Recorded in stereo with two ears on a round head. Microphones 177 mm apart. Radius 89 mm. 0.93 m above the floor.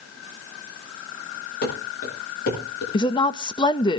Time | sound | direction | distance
1.6 | running footsteps | 60° left (ahead or behind) | 9 m
2.9 | a woman speaking | 25° left (ahead or behind) | 0.7 m